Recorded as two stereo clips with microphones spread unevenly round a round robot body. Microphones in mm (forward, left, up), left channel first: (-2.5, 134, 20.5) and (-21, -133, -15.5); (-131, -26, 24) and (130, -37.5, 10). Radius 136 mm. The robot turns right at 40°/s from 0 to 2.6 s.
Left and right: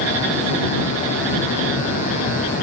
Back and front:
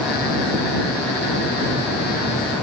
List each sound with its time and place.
Only background noise.